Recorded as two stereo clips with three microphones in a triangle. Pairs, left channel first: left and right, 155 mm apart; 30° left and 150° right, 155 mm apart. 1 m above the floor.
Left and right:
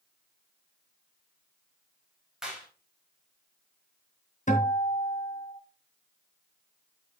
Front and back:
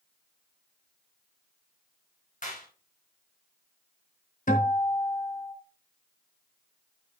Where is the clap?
5° right, 4.5 m.